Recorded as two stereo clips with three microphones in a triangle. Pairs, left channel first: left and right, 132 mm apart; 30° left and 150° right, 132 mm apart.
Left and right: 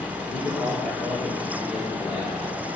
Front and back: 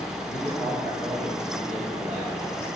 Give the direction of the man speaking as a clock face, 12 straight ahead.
8 o'clock.